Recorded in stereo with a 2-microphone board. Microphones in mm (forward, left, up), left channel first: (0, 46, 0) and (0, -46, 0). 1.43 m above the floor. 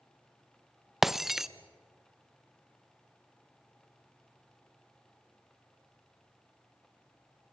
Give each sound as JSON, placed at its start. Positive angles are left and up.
{"t": 1.0, "sound": "breaking glass", "side_deg": -5, "distance_m": 0.6}